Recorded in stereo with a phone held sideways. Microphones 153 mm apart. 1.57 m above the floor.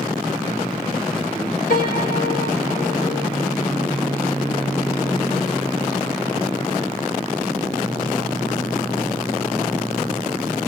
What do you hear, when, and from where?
1.7 s a piano: 70° left (ahead or behind), 1.9 m